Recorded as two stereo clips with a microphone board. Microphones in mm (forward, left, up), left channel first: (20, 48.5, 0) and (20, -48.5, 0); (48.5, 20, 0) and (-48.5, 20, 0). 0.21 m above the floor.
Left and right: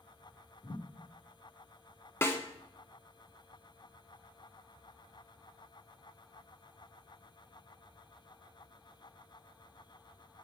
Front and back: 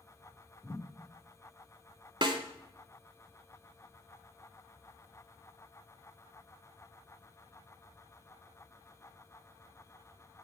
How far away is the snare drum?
About 0.7 m.